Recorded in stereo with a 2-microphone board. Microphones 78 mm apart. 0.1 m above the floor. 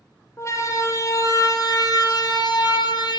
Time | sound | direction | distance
0.4 | a siren | 40° left (ahead or behind) | 5 m